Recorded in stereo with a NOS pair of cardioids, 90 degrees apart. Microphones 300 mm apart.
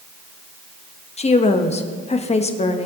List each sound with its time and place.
1.2 s a woman speaking: 20° left, 1.2 m